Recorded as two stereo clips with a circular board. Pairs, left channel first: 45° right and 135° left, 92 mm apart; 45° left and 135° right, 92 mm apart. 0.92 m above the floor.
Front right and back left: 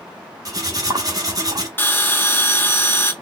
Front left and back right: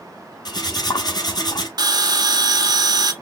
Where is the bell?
105° right, 0.7 m.